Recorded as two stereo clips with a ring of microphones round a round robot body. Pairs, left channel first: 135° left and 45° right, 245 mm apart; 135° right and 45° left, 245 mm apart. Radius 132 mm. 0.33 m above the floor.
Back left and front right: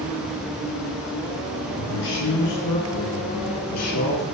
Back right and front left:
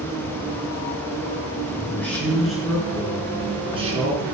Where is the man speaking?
145° left, 4 m; by 4.2 s 105° left, 3.5 m.